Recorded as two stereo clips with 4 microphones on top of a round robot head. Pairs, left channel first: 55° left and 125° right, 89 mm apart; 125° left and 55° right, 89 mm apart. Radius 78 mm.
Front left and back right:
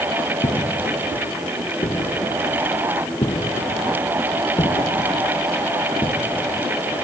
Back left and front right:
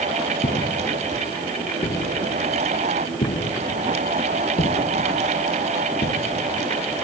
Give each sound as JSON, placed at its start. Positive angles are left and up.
{"t": 0.4, "sound": "footsteps", "azimuth_deg": 100}